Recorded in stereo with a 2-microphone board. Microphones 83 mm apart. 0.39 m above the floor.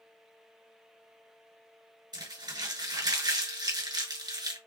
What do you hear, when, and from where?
2.1 s crumpling: 60° right (ahead or behind), 2.5 m